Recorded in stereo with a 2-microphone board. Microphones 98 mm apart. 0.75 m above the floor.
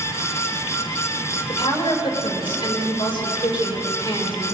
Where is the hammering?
I don't hear hammering.